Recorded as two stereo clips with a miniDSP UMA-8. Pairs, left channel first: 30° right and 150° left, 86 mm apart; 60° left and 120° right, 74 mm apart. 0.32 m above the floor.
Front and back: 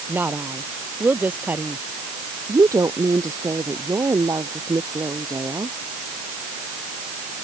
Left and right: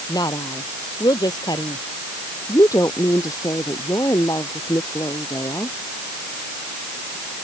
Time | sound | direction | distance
0.1 | a woman speaking | 85° left | ?
2.5 | a woman speaking | 100° left | ?